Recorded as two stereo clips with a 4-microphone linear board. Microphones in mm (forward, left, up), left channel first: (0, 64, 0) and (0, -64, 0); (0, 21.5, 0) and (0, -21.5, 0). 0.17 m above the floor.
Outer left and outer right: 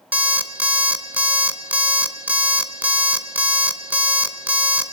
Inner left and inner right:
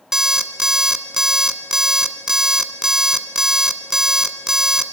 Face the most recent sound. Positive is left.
turn(degrees=-15)  # may be behind; listen again after turning